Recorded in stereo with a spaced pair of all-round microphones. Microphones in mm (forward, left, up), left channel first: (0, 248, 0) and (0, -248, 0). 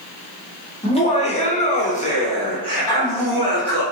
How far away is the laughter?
About 0.9 m.